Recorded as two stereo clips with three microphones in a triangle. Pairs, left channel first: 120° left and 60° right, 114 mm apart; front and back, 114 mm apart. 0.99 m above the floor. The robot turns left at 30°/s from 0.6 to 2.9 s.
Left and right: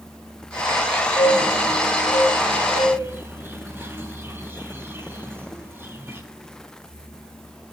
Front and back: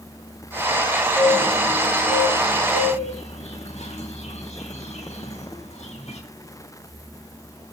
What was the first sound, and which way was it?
A bird, 65° left.